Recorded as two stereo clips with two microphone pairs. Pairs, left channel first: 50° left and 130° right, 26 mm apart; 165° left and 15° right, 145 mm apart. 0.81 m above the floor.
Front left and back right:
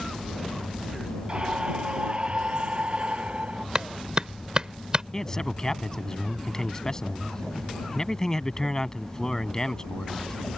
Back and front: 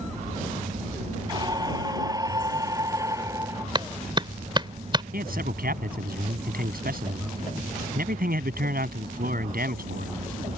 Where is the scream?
80° right; by 3.6 s 85° right.